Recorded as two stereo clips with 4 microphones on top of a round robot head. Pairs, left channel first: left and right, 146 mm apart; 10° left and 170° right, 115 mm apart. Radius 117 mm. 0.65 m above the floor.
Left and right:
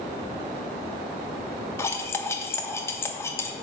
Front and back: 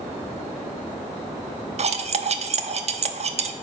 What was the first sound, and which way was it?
Cutlery clinking, 165° left.